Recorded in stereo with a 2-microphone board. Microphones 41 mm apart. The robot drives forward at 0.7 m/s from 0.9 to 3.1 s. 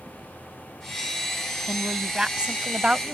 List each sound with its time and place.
1.7 s a woman speaking: 15° right (ahead or behind); by 3.1 s 20° right (ahead or behind)